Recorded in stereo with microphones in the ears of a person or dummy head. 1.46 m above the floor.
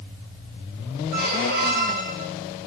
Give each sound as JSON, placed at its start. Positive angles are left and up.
{"t": 1.1, "sound": "a squeak", "side_deg": -45, "distance_m": 3.5}